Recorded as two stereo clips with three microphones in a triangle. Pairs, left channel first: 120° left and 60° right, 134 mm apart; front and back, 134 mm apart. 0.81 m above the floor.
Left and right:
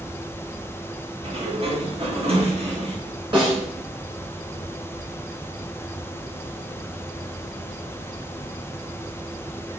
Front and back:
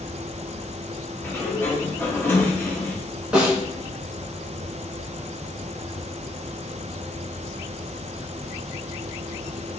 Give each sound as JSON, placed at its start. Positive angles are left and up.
{"t": 1.2, "sound": "a sliding door", "azimuth_deg": -65, "distance_m": 0.7}
{"t": 3.3, "sound": "a snare drum", "azimuth_deg": -100, "distance_m": 1.2}